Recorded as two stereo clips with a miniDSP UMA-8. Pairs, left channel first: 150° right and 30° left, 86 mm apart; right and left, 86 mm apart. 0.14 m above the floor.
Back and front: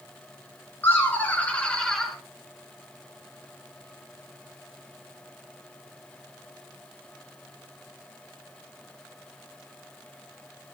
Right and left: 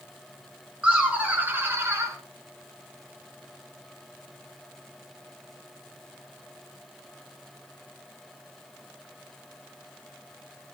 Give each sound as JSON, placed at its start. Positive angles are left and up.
{"t": 0.8, "sound": "laughter", "azimuth_deg": 165, "distance_m": 1.9}